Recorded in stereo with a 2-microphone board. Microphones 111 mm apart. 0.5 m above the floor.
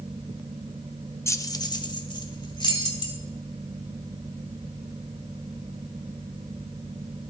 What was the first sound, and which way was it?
Keys jangling, 25° left (ahead or behind).